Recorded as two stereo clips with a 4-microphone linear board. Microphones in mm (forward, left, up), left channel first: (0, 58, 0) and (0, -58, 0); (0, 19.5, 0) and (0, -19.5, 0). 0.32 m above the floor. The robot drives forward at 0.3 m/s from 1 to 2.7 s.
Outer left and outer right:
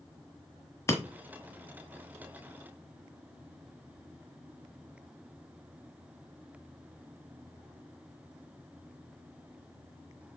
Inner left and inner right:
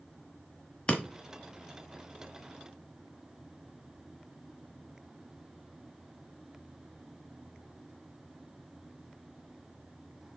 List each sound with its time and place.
0.9 s breaking glass: 25° left (ahead or behind), 1.3 m